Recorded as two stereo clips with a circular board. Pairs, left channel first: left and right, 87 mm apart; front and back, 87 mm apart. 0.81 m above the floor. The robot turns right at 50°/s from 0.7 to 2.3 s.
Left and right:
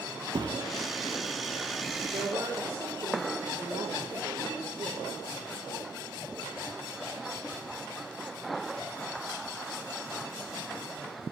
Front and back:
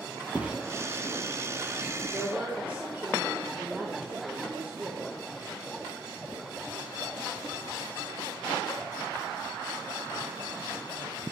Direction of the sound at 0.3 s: 105° right.